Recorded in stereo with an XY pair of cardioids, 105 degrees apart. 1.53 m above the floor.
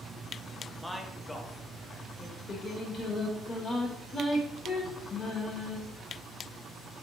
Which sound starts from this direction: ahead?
A man speaking, at 0.8 s.